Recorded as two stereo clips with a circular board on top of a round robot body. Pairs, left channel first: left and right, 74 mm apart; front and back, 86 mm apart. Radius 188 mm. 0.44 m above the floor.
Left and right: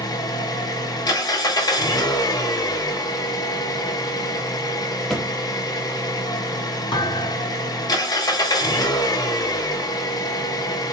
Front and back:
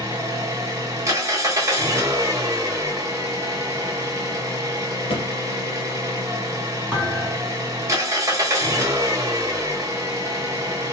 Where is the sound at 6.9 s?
105° left, 1.6 m.